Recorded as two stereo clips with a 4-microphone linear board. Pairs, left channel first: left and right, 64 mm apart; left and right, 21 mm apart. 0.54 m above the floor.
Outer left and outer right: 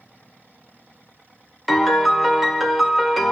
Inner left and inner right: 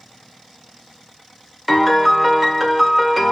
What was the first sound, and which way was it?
A piano, centre (ahead or behind).